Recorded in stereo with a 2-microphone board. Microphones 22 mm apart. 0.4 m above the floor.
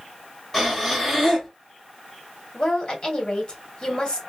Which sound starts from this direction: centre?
Breathing, at 0.5 s.